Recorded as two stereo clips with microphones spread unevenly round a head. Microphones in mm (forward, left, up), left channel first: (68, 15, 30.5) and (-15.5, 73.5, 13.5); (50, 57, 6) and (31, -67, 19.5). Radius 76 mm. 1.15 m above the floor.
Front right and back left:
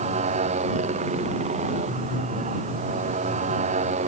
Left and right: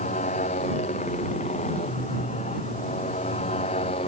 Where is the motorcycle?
135° left; by 4.1 s 140° left.